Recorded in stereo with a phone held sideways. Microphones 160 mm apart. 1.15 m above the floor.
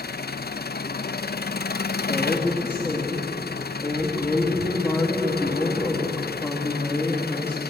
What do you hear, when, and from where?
0.0 s an engine running: 85° left, 0.7 m
2.0 s a woman speaking: 15° left (ahead or behind), 2.5 m